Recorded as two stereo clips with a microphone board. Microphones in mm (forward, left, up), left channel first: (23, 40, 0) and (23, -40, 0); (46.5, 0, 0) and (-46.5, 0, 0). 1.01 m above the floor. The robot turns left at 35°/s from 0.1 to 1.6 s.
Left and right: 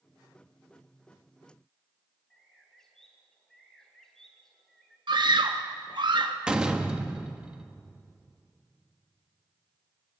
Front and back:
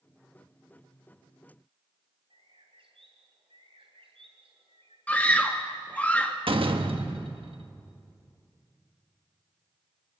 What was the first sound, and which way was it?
A bird, 175° left.